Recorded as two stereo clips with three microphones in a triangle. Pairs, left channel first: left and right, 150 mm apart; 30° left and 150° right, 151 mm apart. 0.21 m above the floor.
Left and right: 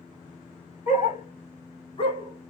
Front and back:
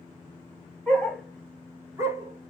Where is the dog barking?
110° left, 1.2 m; by 2.5 s 155° left, 1.0 m.